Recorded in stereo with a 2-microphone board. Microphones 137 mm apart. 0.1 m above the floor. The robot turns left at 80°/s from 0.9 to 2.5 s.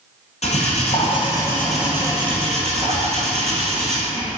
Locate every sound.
0.4 s cutlery clinking: 70° left, 1.6 m; by 4.3 s 60° right, 1.6 m